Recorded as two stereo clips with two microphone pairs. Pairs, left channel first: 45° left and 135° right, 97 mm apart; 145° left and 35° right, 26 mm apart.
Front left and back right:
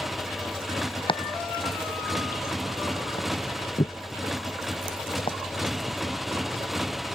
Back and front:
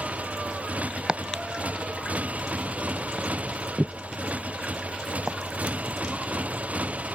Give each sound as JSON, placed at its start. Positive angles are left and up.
{"t": 0.0, "sound": "a motorcycle", "azimuth_deg": -45}
{"t": 1.1, "sound": "chopping", "azimuth_deg": 20}